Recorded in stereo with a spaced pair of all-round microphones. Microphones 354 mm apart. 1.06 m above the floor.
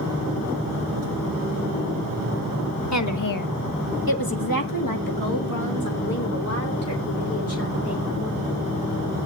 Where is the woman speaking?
50° left (ahead or behind), 1.2 m; by 8.4 s 40° left (ahead or behind), 4 m.